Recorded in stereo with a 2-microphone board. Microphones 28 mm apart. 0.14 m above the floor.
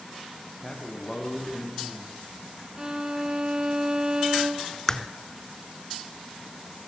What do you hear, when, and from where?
0.6 s a man speaking: 20° left (ahead or behind), 10 m
2.8 s a violin: 30° right (ahead or behind), 1.8 m
4.9 s a crack: 20° left (ahead or behind), 1.0 m